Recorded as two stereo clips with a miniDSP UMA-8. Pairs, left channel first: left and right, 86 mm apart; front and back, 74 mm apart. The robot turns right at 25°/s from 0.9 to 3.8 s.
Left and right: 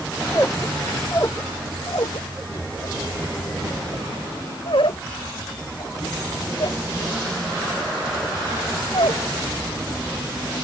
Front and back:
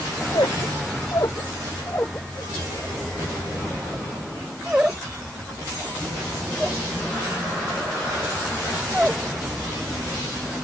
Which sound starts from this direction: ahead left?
A squeak, at 0.3 s.